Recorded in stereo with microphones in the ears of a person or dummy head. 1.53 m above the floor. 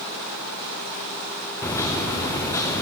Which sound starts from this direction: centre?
A microwave, at 1.6 s.